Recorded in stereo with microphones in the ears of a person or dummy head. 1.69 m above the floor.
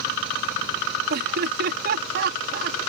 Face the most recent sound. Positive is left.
turn(degrees=-55)  # may be behind; listen again after turning